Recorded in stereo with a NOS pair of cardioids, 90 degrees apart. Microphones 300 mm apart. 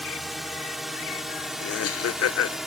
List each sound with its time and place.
0.0 s a drone: straight ahead
1.6 s laughter: 55° left